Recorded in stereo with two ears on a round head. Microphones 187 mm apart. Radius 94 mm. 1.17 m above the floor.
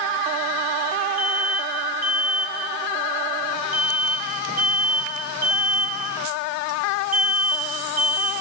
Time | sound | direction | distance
1.2 | an alarm | 45° right (ahead or behind) | 10 m